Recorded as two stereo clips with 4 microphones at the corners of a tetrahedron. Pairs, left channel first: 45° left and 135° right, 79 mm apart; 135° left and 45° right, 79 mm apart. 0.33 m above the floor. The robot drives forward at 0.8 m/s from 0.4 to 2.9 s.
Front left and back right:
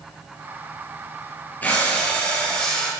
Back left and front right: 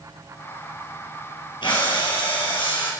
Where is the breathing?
115° left, 5.5 m; by 2.9 s 125° left, 6 m.